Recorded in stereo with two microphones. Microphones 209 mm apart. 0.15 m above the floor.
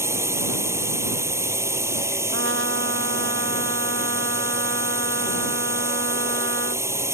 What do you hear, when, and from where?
0.0 s a drone: 10° right (ahead or behind)
2.3 s a trumpet: 75° right (ahead or behind)